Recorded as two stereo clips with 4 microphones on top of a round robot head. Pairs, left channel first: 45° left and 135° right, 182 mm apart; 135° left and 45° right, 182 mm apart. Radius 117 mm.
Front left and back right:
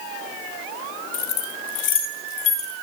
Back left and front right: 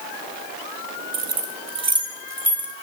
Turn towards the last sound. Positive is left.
turn(degrees=40)